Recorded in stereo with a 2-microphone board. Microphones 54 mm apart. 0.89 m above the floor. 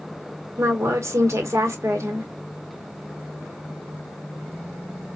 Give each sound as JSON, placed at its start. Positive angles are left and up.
{"t": 0.6, "sound": "a woman speaking", "side_deg": -60, "distance_m": 1.4}